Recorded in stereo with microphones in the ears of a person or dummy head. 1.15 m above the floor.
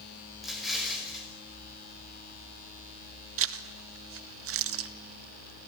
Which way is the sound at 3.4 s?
65° right (ahead or behind).